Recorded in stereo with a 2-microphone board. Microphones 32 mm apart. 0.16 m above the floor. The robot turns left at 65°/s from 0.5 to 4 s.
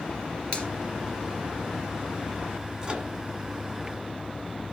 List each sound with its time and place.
0.5 s a finger snap: 35° left (ahead or behind), 1.9 m; by 0.7 s 45° left (ahead or behind), 1.9 m
2.8 s a microwave: 30° right (ahead or behind), 1.5 m